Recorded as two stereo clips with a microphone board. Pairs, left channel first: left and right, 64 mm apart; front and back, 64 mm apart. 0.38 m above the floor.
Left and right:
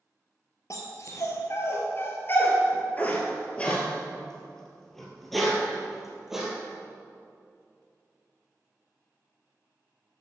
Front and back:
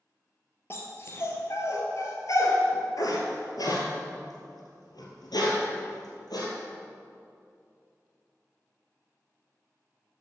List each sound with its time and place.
0.7 s a dog barking: 50° left, 2.5 m; by 6.5 s 5° right, 3.5 m